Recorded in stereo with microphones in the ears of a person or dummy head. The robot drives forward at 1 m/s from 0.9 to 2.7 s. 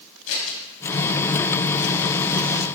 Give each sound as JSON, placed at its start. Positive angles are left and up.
{"t": 0.3, "sound": "scissors", "side_deg": 85, "distance_m": 3.5}